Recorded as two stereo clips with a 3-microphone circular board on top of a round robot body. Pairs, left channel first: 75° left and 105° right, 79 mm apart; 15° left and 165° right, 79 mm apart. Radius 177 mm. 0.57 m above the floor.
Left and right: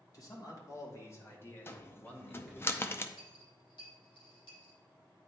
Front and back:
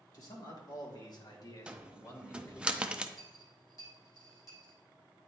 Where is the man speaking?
40° left, 2.5 m; by 2.7 s 20° right, 1.5 m.